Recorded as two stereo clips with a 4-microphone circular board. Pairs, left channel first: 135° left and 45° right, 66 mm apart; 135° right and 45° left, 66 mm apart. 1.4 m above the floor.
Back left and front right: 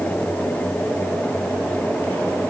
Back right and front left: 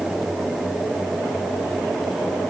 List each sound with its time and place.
Only background noise.